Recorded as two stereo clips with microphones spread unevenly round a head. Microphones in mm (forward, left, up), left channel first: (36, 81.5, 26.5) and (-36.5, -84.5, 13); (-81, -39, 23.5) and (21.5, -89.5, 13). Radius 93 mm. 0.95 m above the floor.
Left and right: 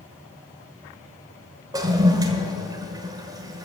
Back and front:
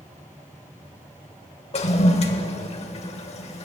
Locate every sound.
1.7 s a toilet flushing: 175° left, 1.4 m